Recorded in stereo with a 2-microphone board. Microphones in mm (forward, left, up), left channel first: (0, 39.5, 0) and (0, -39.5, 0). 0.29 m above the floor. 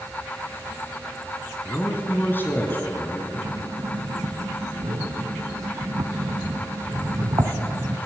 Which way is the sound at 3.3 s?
55° right (ahead or behind).